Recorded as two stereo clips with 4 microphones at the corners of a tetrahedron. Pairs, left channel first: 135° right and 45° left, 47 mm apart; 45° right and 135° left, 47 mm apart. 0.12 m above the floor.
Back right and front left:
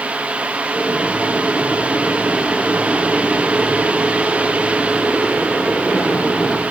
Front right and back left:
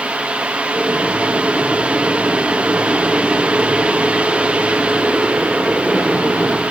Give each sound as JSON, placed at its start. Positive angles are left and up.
{"t": 0.7, "sound": "boiling", "azimuth_deg": -125, "distance_m": 6.5}